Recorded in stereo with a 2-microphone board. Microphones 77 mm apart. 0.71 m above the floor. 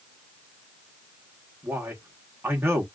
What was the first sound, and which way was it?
A man speaking, 30° right (ahead or behind).